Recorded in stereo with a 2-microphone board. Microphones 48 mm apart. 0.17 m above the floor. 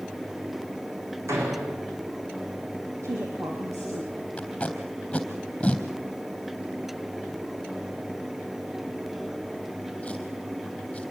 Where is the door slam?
80° right, 8 m.